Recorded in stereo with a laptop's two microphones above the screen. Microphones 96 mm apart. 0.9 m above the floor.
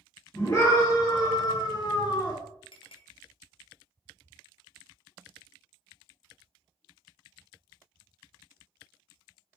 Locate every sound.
0.3 s a scream: 35° left (ahead or behind), 2.0 m; by 2.4 s 40° left (ahead or behind), 0.8 m
2.7 s a clink: 65° left (ahead or behind), 0.5 m